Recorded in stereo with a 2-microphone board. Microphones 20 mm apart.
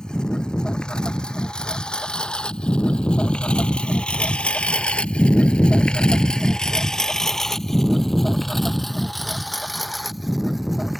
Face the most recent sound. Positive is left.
turn(degrees=-5)  # may be behind; listen again after turning